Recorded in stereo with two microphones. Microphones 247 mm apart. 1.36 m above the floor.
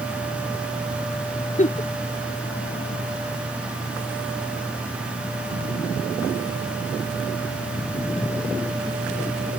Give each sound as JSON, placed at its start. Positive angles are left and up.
{"t": 1.6, "sound": "a giggle", "side_deg": 30}